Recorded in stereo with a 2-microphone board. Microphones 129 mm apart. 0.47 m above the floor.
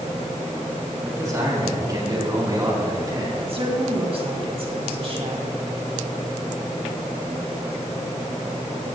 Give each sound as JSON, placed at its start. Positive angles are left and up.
{"t": 1.0, "sound": "a man speaking", "side_deg": -25, "distance_m": 4.0}
{"t": 3.4, "sound": "a woman speaking", "side_deg": -45, "distance_m": 3.0}